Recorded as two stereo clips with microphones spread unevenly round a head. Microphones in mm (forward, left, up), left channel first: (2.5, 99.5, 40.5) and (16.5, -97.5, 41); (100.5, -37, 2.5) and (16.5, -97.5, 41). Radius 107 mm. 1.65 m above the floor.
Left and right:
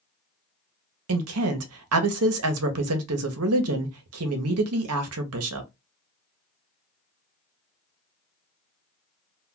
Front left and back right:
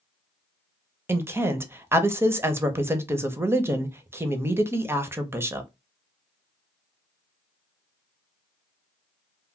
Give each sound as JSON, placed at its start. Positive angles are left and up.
{"t": 1.1, "sound": "a woman speaking", "azimuth_deg": -90, "distance_m": 0.7}